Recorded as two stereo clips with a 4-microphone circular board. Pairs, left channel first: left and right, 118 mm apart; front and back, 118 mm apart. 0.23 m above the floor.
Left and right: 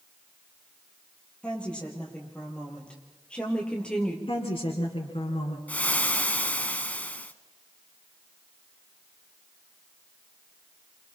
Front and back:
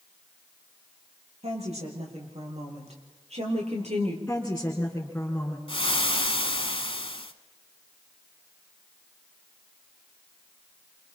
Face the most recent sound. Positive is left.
turn(degrees=15)